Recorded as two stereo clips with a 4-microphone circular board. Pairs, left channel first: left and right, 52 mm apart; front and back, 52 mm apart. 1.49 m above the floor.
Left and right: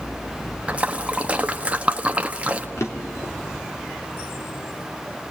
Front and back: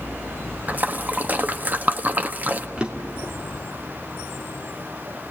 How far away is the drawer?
About 2.5 m.